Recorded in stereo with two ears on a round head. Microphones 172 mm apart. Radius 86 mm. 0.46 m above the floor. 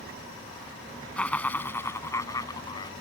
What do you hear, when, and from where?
1.2 s laughter: 5° left (ahead or behind); by 2.9 s 25° left (ahead or behind)